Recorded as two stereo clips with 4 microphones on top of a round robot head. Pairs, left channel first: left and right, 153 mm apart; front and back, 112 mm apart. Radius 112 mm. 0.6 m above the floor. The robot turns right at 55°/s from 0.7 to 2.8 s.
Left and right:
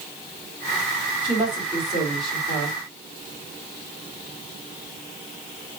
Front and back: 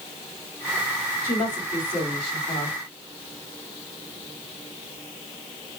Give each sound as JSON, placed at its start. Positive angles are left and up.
{"t": 1.2, "sound": "a woman speaking", "azimuth_deg": -50, "distance_m": 1.9}